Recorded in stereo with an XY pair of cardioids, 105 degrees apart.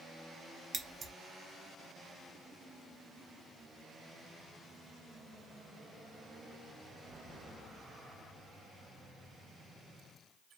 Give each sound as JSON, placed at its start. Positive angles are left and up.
{"t": 0.7, "sound": "scissors", "azimuth_deg": -45, "distance_m": 0.8}